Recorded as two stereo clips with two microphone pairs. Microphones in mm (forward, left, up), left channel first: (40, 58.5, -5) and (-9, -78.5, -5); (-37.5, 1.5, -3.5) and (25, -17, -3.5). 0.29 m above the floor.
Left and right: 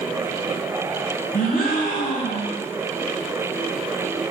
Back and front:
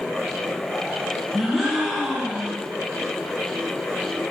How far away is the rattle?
No rattle in this recording.